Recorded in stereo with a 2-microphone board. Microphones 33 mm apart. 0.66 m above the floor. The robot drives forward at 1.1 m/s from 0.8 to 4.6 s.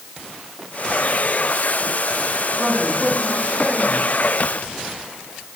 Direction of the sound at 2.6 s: 40° right (ahead or behind).